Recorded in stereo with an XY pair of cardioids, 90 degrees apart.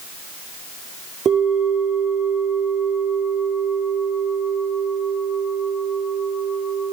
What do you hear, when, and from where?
1.2 s a bell: 65° right, 4.5 m